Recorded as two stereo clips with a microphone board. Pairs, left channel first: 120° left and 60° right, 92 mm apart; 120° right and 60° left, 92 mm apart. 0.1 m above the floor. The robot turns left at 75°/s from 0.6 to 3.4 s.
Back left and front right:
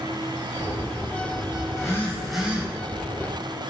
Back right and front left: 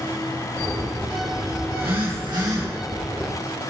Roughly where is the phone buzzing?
Left.